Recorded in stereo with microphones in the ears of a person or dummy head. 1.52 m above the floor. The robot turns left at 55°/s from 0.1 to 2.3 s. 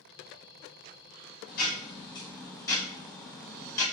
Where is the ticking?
60° left, 2.5 m; by 3.9 s 15° left, 2.5 m.